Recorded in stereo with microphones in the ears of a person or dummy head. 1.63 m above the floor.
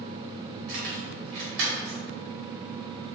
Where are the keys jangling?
60° right (ahead or behind), 1.1 m.